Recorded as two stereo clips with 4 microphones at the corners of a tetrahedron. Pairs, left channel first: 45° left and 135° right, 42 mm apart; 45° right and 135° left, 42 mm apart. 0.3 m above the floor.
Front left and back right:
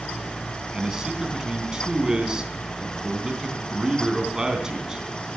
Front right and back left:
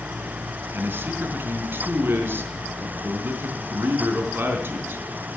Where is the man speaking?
155° left, 3.5 m.